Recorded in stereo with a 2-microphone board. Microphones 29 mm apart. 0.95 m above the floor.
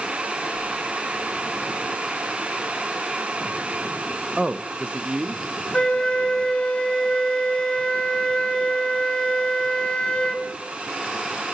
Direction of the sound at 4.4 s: 20° right (ahead or behind).